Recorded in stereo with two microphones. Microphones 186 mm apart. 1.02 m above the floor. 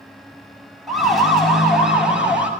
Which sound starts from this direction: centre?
A siren, at 0.9 s.